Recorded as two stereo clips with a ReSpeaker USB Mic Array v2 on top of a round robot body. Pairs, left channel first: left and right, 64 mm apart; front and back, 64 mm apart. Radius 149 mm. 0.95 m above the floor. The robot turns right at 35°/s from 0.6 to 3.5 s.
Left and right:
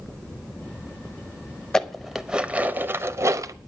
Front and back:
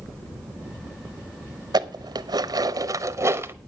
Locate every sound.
1.7 s dishes clattering: 170° left, 0.9 m; by 3.5 s 130° right, 0.9 m